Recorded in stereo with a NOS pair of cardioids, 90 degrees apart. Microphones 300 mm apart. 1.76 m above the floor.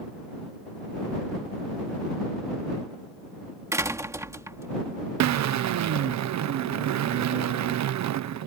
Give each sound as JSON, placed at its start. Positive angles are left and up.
{"t": 3.7, "sound": "a door slam", "azimuth_deg": -10}
{"t": 5.2, "sound": "a drill", "azimuth_deg": -65}